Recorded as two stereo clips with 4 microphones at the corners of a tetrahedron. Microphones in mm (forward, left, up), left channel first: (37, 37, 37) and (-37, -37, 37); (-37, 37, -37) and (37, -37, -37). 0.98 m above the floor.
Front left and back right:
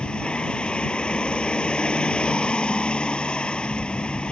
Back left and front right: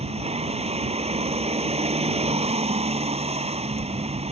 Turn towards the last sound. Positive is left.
turn(degrees=-35)